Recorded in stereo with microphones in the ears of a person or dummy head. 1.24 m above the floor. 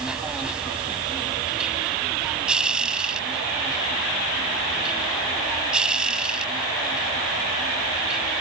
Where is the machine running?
5° right (ahead or behind).